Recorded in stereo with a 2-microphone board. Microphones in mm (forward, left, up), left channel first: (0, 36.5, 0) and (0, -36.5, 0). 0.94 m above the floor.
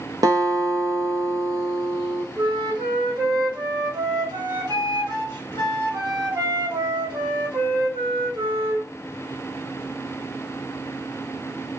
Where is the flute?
85° right, 1.4 m.